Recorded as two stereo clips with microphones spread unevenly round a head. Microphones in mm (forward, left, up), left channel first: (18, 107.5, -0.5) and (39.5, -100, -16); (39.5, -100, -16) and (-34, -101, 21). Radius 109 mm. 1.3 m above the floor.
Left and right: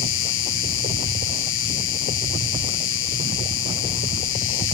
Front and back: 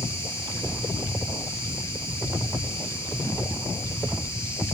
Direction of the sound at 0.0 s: 65° left.